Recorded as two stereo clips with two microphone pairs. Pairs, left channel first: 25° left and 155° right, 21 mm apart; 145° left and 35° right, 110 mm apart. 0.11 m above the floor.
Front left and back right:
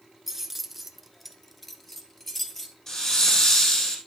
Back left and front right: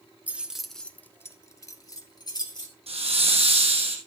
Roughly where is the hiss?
Ahead.